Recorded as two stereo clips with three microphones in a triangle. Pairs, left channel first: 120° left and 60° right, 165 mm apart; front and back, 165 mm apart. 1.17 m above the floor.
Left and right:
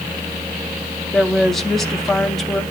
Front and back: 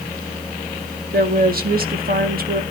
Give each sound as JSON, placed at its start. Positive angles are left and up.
{"t": 1.1, "sound": "a woman speaking", "azimuth_deg": -150, "distance_m": 1.6}